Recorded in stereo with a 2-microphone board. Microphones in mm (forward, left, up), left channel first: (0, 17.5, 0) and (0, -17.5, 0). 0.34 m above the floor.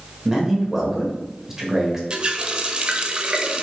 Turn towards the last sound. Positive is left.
turn(degrees=-30)  # may be behind; listen again after turning